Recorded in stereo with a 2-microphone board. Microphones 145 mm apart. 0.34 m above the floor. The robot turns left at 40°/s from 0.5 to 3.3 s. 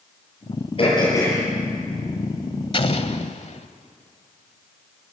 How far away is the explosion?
About 1.2 m.